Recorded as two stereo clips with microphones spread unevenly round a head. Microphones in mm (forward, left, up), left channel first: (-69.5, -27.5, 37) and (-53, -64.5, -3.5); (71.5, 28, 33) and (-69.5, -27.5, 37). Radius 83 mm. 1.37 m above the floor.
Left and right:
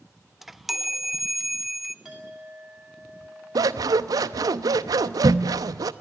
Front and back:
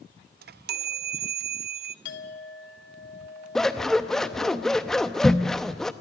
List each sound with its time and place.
0.4 s a chime: 135° right, 0.6 m
2.0 s a clink: 30° left, 2 m
3.5 s scissors: 65° right, 0.7 m